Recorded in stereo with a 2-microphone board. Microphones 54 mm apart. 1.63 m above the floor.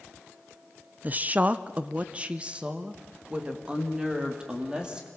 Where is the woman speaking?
30° right (ahead or behind), 0.5 m; by 5.1 s 15° right (ahead or behind), 3 m.